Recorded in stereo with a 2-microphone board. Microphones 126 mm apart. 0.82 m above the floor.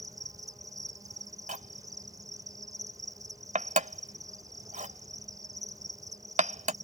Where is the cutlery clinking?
80° right.